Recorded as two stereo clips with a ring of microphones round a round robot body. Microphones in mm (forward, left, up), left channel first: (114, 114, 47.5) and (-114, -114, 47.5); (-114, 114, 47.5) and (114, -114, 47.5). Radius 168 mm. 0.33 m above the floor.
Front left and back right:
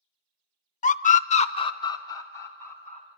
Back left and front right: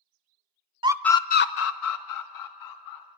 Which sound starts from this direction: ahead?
A scream, at 0.8 s.